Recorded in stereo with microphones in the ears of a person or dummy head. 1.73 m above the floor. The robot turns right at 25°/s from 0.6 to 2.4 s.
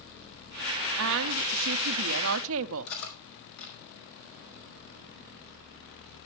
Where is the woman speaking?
115° right, 0.6 m; by 2.9 s 80° right, 0.6 m.